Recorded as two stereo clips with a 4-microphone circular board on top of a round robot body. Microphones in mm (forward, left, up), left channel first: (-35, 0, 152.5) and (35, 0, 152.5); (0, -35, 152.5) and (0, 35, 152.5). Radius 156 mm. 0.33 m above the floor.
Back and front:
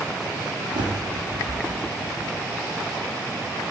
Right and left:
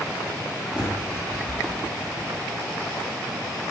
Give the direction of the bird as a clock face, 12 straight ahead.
12 o'clock.